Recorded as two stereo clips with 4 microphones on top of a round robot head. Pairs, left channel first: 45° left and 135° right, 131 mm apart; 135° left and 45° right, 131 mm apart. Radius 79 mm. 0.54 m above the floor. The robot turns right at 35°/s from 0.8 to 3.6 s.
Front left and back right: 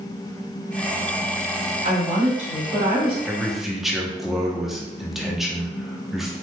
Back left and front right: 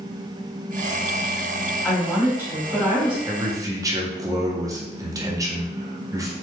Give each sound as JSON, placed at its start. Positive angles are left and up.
{"t": 1.8, "sound": "a woman speaking", "azimuth_deg": -140, "distance_m": 1.7}
{"t": 3.2, "sound": "a man speaking", "azimuth_deg": -60, "distance_m": 0.8}